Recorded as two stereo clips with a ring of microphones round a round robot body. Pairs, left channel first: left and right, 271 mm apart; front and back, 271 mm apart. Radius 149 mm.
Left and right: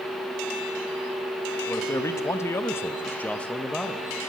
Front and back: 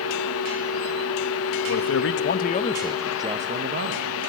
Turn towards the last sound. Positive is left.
turn(degrees=180)